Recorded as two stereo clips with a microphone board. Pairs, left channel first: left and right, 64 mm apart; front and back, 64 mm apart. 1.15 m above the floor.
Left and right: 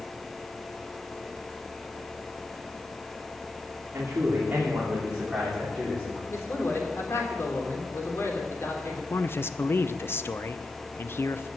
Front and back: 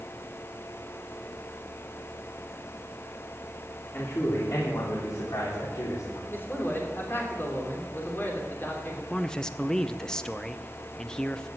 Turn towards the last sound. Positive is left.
turn(degrees=70)